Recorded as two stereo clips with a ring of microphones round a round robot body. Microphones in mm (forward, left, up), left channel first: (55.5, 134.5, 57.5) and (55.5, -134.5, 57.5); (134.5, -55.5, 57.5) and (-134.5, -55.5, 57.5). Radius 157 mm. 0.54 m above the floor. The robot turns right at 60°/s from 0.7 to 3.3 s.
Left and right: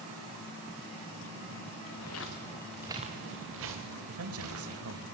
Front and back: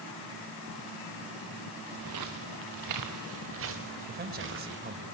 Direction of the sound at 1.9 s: 115° left.